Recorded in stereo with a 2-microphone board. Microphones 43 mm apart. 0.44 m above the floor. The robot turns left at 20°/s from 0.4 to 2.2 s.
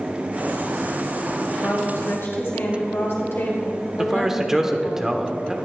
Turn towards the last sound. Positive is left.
turn(degrees=-10)  # may be behind; listen again after turning